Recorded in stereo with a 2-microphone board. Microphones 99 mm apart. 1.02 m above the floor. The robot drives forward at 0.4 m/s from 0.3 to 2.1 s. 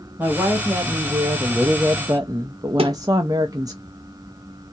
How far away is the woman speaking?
About 1.3 m.